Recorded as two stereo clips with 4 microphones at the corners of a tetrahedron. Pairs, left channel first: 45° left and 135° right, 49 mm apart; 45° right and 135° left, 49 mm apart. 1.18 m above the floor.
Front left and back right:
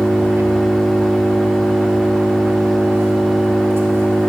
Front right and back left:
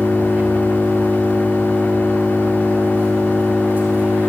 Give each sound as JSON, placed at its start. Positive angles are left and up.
{"t": 0.0, "sound": "an engine running", "azimuth_deg": -165, "distance_m": 4.5}